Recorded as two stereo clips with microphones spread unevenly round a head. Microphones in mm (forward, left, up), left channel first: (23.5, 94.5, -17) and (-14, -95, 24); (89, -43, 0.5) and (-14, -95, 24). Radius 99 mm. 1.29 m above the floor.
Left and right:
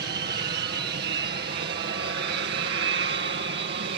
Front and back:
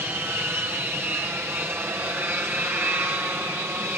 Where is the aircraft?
80° right.